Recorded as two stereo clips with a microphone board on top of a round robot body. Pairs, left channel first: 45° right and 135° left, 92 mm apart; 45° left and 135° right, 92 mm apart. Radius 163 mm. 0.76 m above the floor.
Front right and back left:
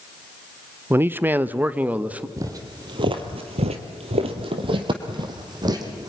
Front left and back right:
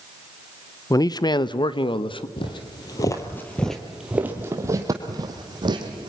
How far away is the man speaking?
About 0.8 m.